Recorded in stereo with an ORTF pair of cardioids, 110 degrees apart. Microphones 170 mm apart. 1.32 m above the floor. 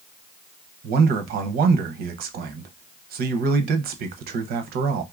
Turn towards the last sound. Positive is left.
turn(degrees=-65)